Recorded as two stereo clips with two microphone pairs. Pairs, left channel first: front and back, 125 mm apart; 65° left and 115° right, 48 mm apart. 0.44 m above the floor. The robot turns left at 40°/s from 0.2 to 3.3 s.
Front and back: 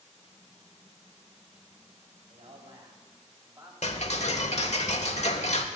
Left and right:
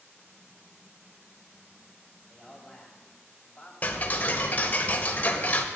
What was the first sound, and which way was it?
A man speaking, 170° left.